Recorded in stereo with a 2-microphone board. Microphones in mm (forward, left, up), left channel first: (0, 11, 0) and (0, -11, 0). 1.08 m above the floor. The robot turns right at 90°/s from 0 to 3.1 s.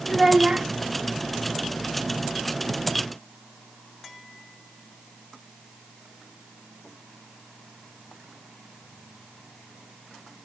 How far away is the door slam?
No door slam in this recording.